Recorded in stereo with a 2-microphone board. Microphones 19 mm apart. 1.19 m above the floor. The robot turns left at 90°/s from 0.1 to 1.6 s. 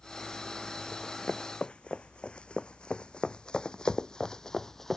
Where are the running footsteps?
25° left (ahead or behind); by 5.0 s 20° left (ahead or behind).